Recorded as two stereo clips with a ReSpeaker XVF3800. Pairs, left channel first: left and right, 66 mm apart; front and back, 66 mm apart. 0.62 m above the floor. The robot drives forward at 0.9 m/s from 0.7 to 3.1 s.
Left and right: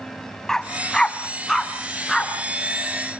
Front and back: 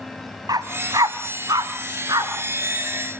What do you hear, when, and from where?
0.5 s a dog barking: 170° left, 1.4 m; by 2.3 s 175° left, 3 m